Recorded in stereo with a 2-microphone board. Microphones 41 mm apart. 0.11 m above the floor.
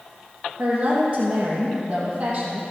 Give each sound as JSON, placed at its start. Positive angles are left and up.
{"t": 0.6, "sound": "a woman speaking", "side_deg": -30, "distance_m": 4.0}